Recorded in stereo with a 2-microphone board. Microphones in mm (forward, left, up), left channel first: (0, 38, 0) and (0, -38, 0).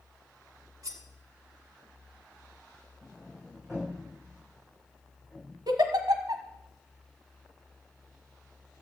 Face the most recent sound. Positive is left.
turn(degrees=-65)  # may be behind; listen again after turning